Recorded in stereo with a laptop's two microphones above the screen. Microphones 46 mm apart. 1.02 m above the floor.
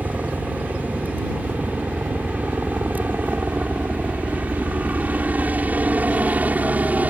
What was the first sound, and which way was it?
A helicopter, 40° right (ahead or behind).